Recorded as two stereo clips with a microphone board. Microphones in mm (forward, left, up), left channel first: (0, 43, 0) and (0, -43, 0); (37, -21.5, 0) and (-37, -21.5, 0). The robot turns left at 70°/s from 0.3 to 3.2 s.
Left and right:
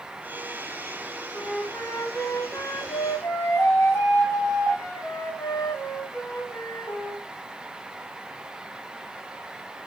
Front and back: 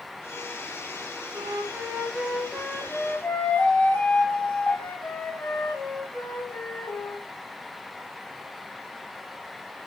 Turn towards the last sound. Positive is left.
turn(degrees=50)